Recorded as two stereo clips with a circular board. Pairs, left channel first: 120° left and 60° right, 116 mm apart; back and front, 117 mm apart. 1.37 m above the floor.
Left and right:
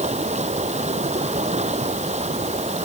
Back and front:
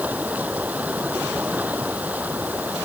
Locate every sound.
0.0 s running water: 75° right